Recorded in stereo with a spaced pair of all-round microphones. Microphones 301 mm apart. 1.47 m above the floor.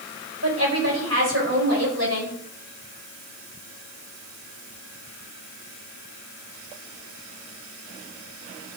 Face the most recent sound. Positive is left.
turn(degrees=-60)  # may be behind; listen again after turning